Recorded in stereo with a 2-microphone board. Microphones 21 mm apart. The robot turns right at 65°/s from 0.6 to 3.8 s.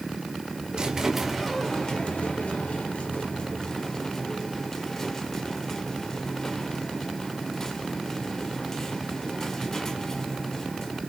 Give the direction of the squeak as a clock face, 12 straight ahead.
1 o'clock.